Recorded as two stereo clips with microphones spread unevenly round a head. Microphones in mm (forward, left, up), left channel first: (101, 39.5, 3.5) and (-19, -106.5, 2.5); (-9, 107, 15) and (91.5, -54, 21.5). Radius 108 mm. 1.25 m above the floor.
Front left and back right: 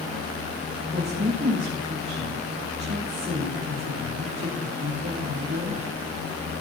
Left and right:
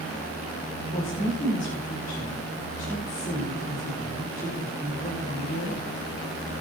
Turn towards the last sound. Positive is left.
turn(degrees=180)